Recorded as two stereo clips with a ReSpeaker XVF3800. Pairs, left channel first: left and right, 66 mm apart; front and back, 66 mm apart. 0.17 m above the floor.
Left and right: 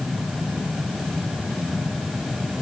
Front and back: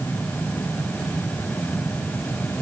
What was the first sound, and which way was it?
Only background noise.